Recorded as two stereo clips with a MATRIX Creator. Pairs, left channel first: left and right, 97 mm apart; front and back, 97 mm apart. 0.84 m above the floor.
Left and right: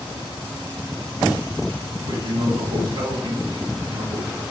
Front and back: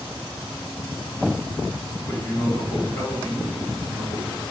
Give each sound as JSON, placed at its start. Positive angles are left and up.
{"t": 2.1, "sound": "a man speaking", "azimuth_deg": -65, "distance_m": 1.9}